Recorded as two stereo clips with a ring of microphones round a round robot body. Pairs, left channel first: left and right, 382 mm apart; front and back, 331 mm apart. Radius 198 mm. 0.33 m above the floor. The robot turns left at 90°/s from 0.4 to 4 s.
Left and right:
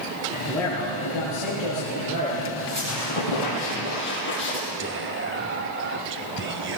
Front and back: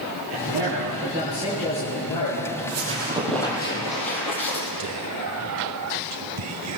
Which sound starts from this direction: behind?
A man speaking, at 0.3 s.